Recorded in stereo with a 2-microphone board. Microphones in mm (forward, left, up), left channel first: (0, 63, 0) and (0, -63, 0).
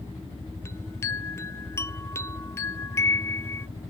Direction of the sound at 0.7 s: 20° left (ahead or behind).